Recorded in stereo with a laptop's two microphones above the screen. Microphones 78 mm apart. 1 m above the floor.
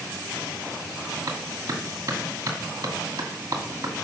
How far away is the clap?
About 2.5 m.